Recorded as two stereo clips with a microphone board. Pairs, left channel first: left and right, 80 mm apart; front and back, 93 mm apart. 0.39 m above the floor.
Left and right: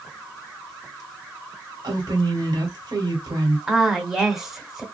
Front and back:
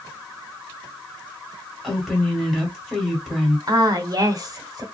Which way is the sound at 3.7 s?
175° right.